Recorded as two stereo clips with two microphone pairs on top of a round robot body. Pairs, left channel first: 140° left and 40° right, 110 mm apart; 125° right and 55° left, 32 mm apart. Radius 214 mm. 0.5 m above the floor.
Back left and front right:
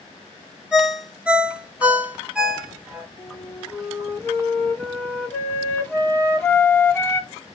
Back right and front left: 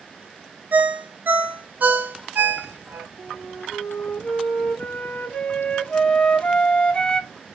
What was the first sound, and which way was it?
A ringtone, 40° left.